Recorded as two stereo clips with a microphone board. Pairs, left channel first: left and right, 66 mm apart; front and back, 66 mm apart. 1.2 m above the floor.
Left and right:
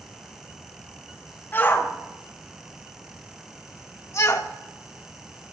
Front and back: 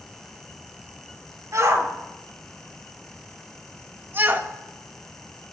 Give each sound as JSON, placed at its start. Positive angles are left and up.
{"t": 1.5, "sound": "a shout", "azimuth_deg": 145, "distance_m": 4.0}